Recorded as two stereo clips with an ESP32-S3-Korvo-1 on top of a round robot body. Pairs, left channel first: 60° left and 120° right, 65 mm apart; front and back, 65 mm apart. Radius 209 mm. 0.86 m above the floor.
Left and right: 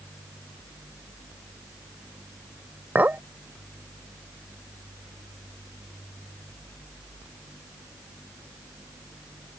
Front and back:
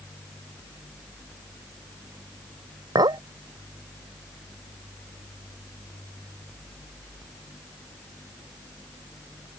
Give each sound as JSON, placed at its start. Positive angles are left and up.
{"t": 3.0, "sound": "a clink", "azimuth_deg": 175}